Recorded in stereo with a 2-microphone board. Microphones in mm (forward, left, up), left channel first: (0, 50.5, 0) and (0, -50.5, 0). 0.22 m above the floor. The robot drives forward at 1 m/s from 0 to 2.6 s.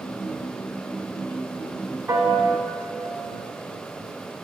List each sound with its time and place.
2.1 s a piano: 20° right (ahead or behind), 0.9 m; by 2.6 s 15° right (ahead or behind), 1.4 m